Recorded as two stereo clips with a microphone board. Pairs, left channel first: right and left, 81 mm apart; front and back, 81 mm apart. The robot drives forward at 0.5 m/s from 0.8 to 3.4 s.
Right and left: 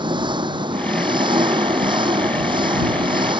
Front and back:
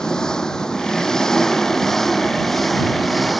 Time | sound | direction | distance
0.0 | an engine running | 80° left | ?